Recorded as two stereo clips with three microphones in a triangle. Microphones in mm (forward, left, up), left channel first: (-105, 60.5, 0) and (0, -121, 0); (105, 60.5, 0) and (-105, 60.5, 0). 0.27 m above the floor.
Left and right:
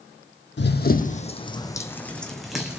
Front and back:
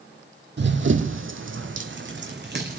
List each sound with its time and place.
0.6 s running footsteps: 150° left, 0.7 m; by 2.8 s 145° right, 1.3 m